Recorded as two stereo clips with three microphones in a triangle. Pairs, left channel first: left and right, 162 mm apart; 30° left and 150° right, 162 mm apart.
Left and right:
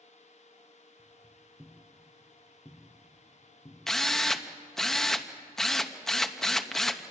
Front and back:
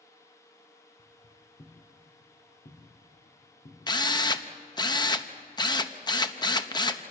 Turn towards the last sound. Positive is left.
turn(degrees=5)